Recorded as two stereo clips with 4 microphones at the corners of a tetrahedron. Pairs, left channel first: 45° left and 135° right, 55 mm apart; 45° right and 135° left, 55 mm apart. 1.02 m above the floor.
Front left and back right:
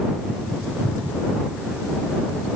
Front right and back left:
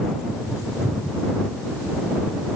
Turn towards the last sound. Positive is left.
No sound to turn to.